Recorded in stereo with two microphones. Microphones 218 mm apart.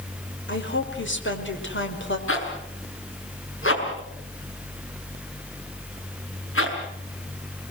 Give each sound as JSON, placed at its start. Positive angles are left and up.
{"t": 0.5, "sound": "a woman speaking", "side_deg": 60, "distance_m": 5.0}
{"t": 2.3, "sound": "a zipper", "side_deg": 70, "distance_m": 6.0}